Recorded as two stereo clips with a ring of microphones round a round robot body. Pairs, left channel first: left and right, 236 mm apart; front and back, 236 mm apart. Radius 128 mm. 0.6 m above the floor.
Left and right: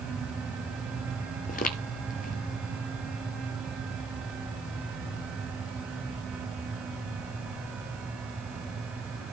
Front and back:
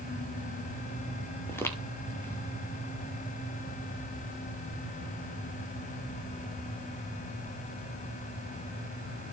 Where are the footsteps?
75° left, 0.6 m.